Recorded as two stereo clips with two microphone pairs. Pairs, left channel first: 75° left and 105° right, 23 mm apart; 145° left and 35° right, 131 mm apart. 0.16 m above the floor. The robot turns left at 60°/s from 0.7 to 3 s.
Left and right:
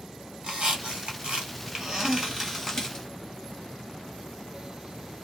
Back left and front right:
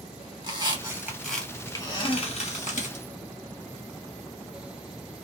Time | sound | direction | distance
0.4 | a squeak | 90° right | 1.9 m